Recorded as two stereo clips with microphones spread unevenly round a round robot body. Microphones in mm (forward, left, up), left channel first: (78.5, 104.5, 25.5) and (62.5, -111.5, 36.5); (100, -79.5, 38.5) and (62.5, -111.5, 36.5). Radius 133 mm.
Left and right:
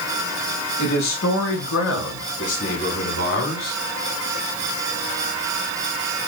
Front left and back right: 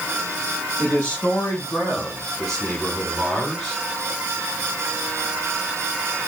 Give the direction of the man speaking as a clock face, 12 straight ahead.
8 o'clock.